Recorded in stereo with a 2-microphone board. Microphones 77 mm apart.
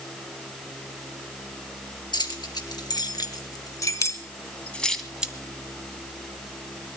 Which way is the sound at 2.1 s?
70° left (ahead or behind).